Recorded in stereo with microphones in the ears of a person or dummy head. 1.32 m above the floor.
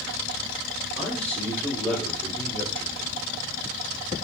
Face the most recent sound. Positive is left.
turn(degrees=10)  # may be behind; listen again after turning